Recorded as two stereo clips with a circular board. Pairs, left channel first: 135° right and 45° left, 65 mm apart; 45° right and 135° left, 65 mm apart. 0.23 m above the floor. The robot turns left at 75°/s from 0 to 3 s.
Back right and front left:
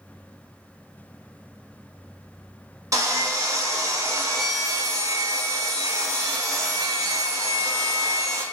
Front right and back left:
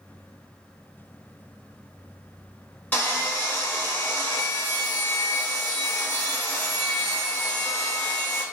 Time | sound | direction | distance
2.9 | sawing | 15° left | 0.8 m